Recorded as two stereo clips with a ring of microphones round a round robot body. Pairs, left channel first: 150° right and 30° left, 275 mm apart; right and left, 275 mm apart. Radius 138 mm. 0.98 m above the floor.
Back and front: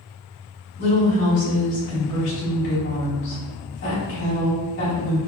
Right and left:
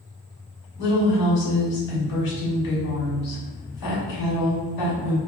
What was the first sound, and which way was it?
A woman speaking, 105° right.